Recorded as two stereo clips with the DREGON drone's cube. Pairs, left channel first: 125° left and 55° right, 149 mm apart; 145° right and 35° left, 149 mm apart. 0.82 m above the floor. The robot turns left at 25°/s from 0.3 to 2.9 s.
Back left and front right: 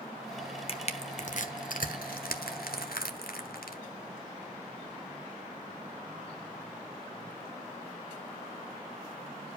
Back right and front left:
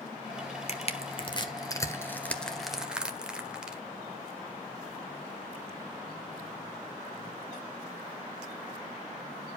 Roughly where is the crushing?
Behind.